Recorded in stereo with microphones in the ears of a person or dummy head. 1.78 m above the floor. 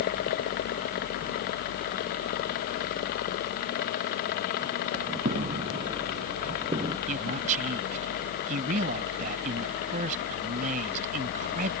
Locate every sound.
5.2 s footsteps: 40° right (ahead or behind); by 7.0 s 20° right (ahead or behind)
7.1 s a man speaking: 45° right (ahead or behind)